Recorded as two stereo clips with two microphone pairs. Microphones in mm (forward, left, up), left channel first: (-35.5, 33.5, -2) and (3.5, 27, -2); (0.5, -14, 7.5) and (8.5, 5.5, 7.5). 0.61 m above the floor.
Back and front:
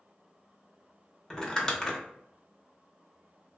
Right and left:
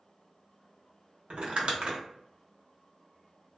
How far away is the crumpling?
About 0.7 m.